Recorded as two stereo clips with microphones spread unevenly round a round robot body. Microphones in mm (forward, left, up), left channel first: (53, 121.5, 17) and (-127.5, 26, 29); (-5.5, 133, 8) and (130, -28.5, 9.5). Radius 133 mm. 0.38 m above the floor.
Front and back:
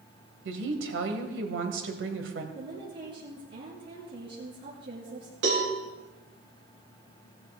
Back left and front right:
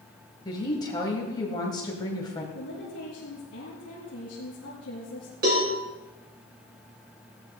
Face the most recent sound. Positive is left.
turn(degrees=-105)